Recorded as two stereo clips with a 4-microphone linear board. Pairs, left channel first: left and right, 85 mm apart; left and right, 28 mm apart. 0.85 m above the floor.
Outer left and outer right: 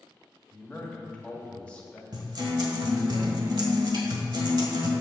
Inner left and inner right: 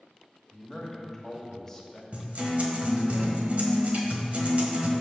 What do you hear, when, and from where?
0.5 s a man speaking: 15° left (ahead or behind), 1.5 m
2.1 s a guitar: 60° right (ahead or behind), 1.4 m